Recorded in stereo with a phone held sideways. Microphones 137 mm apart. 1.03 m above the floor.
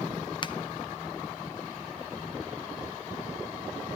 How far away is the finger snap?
About 0.6 m.